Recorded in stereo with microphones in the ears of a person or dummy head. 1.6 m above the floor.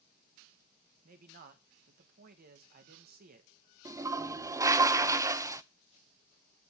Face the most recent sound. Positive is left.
turn(degrees=-15)  # may be behind; listen again after turning